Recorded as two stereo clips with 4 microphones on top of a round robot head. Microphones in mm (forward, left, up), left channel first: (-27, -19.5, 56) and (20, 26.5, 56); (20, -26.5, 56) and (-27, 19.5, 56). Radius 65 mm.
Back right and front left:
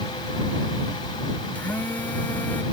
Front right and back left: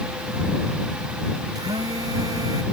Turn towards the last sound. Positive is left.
turn(degrees=160)